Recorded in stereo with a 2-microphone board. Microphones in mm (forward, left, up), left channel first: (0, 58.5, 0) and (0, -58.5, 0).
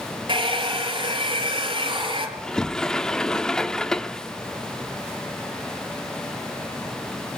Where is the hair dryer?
45° right (ahead or behind), 4.5 m.